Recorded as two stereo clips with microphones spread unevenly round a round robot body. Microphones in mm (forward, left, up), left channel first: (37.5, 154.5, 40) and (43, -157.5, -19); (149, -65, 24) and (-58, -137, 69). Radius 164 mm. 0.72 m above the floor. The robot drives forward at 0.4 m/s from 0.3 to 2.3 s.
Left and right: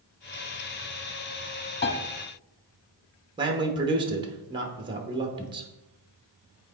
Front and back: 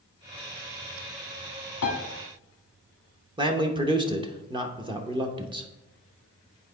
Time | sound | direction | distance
1.8 | a piano | 55° left | 0.8 m
3.4 | a man speaking | 90° right | 0.9 m